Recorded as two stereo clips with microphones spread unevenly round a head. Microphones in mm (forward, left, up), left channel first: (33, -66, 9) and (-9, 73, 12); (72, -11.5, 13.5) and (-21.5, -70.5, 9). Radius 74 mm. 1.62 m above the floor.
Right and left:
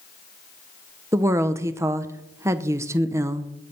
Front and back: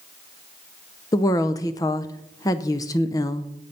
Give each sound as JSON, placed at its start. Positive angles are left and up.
{"t": 1.1, "sound": "a woman speaking", "azimuth_deg": 55, "distance_m": 0.6}